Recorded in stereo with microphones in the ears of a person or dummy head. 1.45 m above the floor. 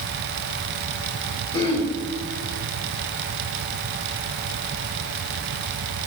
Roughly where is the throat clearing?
Centre.